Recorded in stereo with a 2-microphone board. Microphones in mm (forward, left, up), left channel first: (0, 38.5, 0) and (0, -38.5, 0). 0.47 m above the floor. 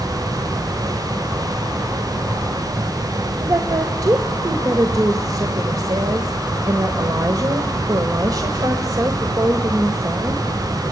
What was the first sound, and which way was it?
A woman speaking, 55° right (ahead or behind).